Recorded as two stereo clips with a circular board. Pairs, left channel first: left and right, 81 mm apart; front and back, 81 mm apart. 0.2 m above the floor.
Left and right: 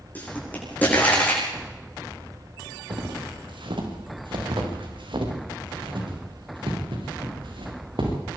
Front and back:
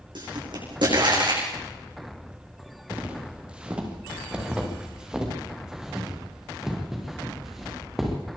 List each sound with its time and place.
0.1 s a pop: 160° left, 9 m
2.9 s footsteps: 105° right, 5 m; by 8.1 s 90° right, 7.5 m